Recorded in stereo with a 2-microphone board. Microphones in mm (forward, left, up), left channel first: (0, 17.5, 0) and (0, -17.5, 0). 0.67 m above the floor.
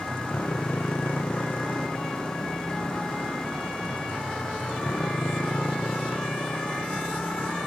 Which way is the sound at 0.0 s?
65° left (ahead or behind).